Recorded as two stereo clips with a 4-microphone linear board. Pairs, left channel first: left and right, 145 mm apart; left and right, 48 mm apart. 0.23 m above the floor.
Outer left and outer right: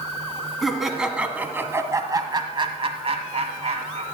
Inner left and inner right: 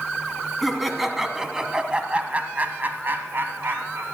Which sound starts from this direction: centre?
Laughter, at 0.6 s.